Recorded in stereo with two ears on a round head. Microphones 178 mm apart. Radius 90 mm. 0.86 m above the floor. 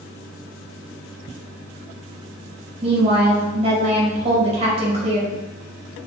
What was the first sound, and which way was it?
A woman speaking, 35° right (ahead or behind).